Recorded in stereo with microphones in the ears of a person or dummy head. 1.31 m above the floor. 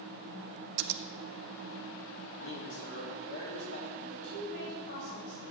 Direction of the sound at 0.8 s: 55° right (ahead or behind).